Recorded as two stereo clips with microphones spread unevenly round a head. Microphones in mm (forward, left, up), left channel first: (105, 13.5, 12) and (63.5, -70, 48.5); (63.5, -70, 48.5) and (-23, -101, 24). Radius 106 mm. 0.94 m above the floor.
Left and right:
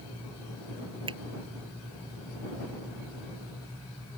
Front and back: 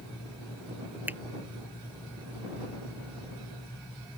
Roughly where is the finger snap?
Right.